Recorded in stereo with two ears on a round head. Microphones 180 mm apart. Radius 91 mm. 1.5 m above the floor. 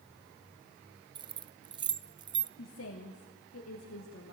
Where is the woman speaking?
70° left (ahead or behind), 2.5 m.